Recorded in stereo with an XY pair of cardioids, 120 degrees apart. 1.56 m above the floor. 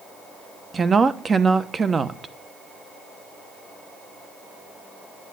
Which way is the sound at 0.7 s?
25° right.